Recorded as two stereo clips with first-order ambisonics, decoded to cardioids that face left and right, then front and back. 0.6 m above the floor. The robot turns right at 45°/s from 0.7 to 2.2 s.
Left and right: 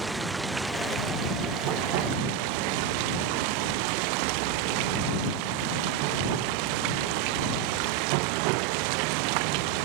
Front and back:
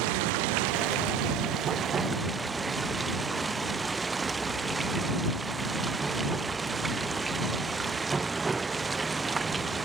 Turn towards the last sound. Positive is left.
turn(degrees=-100)